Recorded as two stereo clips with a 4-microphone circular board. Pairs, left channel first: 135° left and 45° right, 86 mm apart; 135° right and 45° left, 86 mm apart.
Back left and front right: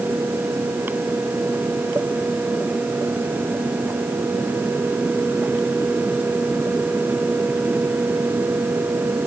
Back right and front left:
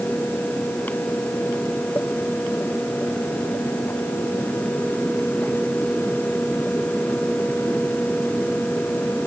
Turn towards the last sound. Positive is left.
No sound to turn to.